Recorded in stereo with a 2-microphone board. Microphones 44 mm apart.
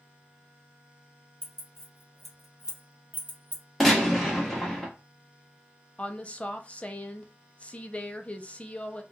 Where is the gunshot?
Centre (ahead or behind), 1.2 m.